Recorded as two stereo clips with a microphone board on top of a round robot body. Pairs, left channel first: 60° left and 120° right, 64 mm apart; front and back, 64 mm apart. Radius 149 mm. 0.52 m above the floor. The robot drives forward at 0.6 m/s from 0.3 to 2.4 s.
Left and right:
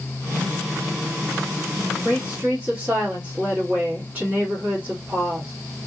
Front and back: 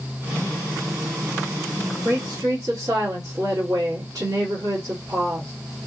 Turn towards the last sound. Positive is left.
turn(degrees=175)